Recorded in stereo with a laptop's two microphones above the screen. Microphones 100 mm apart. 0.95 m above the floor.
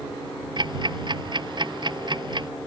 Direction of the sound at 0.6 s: 50° right (ahead or behind).